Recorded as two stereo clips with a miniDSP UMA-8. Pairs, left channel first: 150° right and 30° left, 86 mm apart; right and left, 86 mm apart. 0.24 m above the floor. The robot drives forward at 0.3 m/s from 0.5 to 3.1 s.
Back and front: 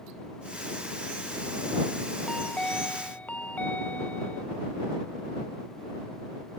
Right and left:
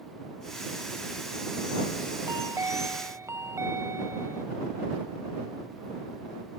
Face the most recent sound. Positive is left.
turn(degrees=140)